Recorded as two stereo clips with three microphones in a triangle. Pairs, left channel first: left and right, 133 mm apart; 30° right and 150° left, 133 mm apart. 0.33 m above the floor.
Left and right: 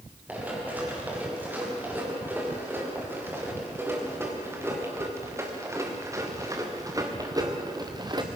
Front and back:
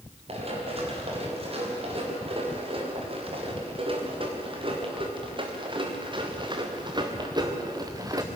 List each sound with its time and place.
0.3 s running footsteps: 165° right, 6.5 m; by 8.3 s 145° right, 2.5 m